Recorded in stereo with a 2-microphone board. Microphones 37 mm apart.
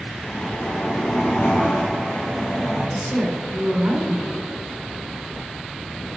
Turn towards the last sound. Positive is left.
turn(degrees=-55)  # may be behind; listen again after turning